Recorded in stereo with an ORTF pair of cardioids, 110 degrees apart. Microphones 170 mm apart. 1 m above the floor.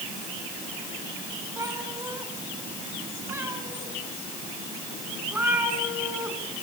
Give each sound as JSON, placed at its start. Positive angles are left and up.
{"t": 1.6, "sound": "a cat meowing", "azimuth_deg": -20, "distance_m": 3.5}